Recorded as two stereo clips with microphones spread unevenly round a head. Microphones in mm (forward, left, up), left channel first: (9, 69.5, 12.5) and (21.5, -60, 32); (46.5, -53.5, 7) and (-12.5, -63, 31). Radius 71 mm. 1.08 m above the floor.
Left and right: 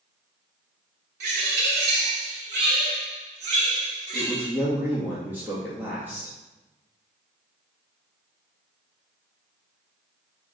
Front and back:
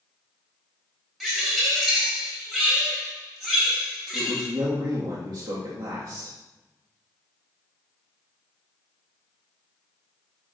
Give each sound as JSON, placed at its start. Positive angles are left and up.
{"t": 1.2, "sound": "a bird", "azimuth_deg": -85, "distance_m": 3.5}
{"t": 4.1, "sound": "a man speaking", "azimuth_deg": -160, "distance_m": 1.7}